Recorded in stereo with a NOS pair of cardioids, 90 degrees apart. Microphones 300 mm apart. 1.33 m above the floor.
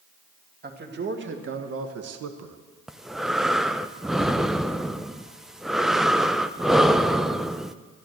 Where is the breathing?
Straight ahead, 0.6 m.